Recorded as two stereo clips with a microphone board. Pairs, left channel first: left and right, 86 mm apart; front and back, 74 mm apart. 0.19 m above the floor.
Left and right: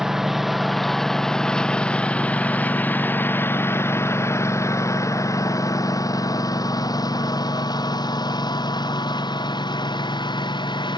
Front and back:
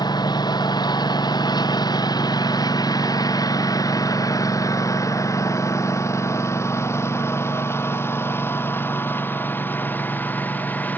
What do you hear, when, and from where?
0.0 s a lawn mower: 5° right; by 11.0 s 65° left